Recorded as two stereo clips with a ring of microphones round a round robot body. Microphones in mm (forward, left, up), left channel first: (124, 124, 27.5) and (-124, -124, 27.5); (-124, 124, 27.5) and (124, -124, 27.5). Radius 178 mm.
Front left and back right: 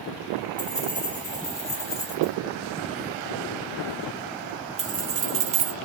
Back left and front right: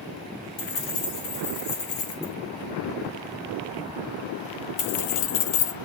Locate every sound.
0.6 s keys jangling: 125° left, 3.5 m; by 5.8 s 175° right, 0.7 m